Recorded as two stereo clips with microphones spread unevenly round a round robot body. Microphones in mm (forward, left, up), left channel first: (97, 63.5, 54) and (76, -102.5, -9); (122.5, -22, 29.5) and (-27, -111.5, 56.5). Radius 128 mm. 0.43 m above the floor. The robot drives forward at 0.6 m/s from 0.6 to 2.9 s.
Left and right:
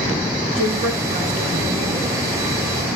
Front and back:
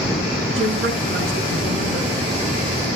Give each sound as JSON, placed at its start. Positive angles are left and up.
{"t": 0.6, "sound": "a woman speaking", "azimuth_deg": -155, "distance_m": 5.0}